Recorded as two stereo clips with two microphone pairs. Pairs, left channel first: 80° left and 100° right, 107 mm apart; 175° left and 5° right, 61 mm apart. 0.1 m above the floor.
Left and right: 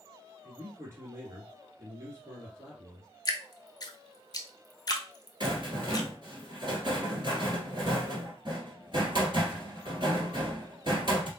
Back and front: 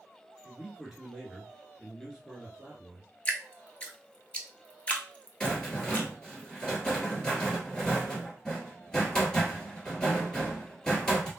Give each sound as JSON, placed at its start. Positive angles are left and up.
{"t": 0.4, "sound": "a man speaking", "azimuth_deg": -80, "distance_m": 1.8}
{"t": 3.2, "sound": "dripping", "azimuth_deg": 110, "distance_m": 0.7}
{"t": 5.4, "sound": "a rattle", "azimuth_deg": -110, "distance_m": 1.5}